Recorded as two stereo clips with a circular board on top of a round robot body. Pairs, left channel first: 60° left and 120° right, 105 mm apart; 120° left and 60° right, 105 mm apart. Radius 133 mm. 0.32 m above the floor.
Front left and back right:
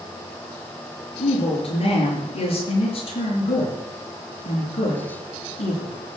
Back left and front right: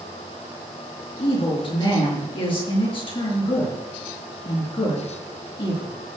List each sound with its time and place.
1.2 s a woman speaking: 85° left, 6.5 m